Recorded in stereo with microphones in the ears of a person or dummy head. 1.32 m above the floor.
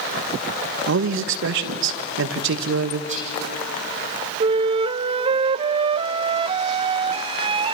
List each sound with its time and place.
0.9 s a man speaking: 70° right (ahead or behind), 1.5 m
3.1 s whispering: 40° right (ahead or behind), 7 m
4.4 s a flute: 30° right (ahead or behind), 0.6 m